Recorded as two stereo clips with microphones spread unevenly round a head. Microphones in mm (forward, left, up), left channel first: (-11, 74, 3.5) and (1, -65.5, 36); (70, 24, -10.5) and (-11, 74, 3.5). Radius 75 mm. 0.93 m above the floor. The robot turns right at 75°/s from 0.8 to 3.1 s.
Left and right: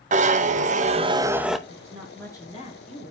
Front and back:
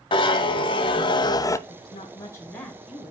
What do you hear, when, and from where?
0.1 s a zipper: 45° right, 0.8 m; by 1.6 s 15° left, 0.8 m
1.7 s a woman speaking: 25° right, 4 m; by 3.1 s 85° left, 4 m